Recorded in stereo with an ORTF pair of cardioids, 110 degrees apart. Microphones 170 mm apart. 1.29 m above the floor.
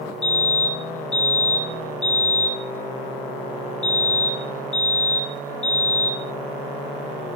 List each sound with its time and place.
0.2 s a fire alarm: 10° left, 8 m